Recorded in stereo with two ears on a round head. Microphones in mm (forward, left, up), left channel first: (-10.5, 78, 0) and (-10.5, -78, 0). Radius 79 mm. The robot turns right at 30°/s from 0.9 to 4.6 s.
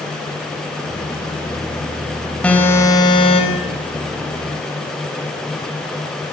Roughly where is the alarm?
Ahead.